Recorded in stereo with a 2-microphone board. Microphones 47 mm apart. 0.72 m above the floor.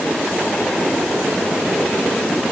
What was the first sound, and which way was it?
Only background noise.